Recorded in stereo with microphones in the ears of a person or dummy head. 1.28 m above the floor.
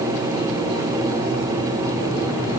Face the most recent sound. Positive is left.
No sound to turn to.